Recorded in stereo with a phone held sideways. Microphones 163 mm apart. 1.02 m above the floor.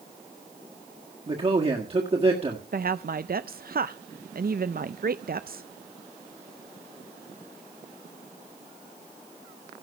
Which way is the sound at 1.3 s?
40° right (ahead or behind).